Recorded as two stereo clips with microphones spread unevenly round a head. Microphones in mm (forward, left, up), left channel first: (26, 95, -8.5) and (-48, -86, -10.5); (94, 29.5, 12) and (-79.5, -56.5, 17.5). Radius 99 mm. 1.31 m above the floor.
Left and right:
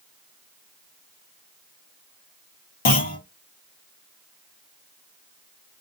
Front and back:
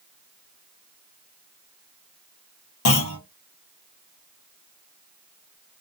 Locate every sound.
2.9 s a clunk: 25° left, 1.0 m